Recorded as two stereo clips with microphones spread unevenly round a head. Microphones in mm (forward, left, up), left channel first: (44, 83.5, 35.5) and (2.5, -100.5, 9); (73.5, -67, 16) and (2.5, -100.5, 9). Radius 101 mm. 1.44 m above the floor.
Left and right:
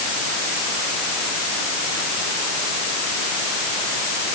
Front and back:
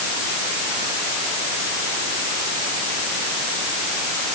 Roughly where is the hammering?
I don't hear hammering.